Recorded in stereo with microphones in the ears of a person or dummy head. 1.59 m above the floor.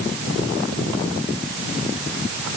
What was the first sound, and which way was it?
Only background noise.